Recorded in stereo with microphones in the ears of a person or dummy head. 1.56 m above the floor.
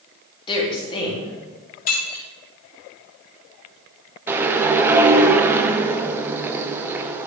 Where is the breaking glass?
50° left (ahead or behind), 2 m.